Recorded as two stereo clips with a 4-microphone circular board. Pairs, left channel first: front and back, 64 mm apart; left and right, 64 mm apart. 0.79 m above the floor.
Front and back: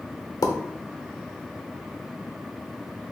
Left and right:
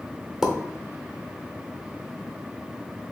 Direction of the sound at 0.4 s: 10° right.